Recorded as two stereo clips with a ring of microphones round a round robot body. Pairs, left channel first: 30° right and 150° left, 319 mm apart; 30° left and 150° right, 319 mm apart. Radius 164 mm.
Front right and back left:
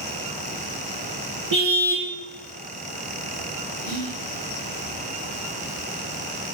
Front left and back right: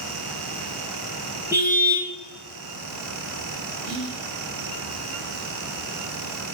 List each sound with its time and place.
1.5 s a car horn: 125° left, 5.5 m
3.8 s whispering: straight behind, 4 m